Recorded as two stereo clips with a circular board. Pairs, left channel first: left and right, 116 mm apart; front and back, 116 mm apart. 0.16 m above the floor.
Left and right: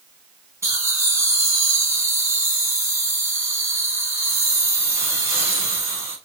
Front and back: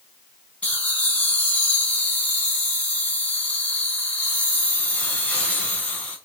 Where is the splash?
No splash in this recording.